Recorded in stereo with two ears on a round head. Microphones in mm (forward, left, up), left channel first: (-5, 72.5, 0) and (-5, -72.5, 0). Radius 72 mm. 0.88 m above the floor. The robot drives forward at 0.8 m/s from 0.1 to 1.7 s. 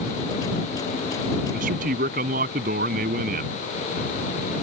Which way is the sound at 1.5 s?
55° right (ahead or behind).